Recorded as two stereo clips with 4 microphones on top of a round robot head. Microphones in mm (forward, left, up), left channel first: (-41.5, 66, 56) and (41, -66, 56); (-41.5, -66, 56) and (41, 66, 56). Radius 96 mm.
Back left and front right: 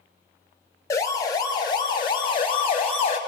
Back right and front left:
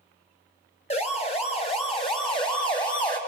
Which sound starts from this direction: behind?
A siren, at 0.9 s.